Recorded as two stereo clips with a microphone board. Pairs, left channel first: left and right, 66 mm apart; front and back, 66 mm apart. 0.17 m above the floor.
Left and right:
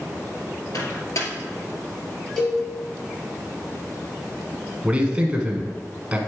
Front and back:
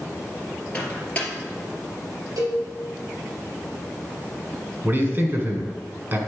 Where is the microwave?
65° left, 2 m.